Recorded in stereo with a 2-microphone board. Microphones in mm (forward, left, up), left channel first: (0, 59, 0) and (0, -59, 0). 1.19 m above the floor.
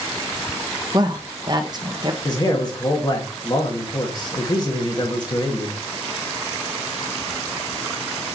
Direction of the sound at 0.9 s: 40° right (ahead or behind).